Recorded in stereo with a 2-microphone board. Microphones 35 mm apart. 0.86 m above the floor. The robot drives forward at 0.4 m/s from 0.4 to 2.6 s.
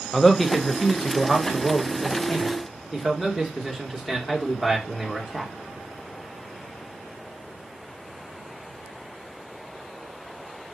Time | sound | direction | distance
0.1 | a man speaking | 15° left (ahead or behind) | 0.8 m